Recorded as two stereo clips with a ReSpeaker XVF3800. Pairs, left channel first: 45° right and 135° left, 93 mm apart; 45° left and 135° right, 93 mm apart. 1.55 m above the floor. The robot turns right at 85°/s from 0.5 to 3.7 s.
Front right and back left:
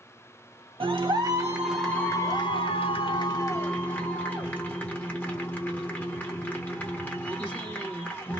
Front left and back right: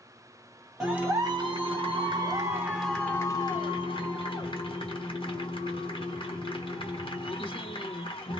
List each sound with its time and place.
0.8 s a clap: 140° left, 1.4 m; by 8.4 s 25° left, 1.4 m